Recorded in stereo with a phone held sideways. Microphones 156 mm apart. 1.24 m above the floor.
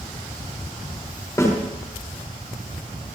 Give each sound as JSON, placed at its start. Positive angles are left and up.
{"t": 1.4, "sound": "a snare drum", "side_deg": 20, "distance_m": 4.0}